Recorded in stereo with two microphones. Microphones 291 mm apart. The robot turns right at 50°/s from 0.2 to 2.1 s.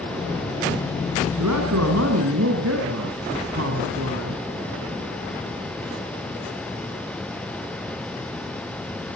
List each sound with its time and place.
1.4 s a man speaking: 95° right, 4.5 m; by 4.4 s 60° right, 4.5 m